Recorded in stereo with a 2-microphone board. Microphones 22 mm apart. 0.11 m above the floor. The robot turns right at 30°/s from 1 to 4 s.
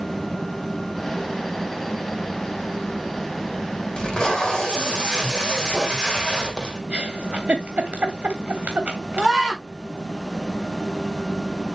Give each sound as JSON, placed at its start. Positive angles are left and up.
{"t": 4.0, "sound": "tape being pulled", "side_deg": 35, "distance_m": 3.5}
{"t": 6.9, "sound": "a giggle", "side_deg": -70, "distance_m": 3.0}
{"t": 9.2, "sound": "a scream", "side_deg": 5, "distance_m": 7.0}